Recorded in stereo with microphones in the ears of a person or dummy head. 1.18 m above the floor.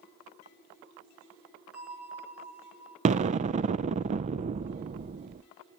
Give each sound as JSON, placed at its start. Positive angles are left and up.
{"t": 1.7, "sound": "a bell", "side_deg": -5, "distance_m": 4.0}
{"t": 3.0, "sound": "an explosion", "side_deg": -35, "distance_m": 0.5}